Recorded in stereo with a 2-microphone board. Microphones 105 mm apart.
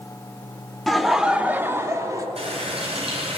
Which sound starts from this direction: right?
A running tap, at 2.4 s.